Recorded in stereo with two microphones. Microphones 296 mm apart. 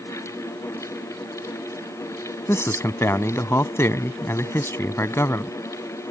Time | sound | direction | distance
2.5 | a man speaking | 10° left (ahead or behind) | ?